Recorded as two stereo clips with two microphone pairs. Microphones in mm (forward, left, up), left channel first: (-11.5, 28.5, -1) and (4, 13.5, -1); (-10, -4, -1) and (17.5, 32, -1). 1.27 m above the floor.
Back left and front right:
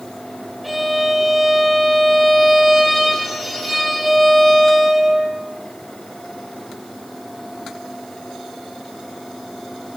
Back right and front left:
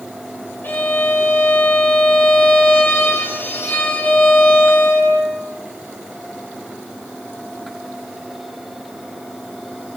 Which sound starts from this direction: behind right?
A violin, at 0.6 s.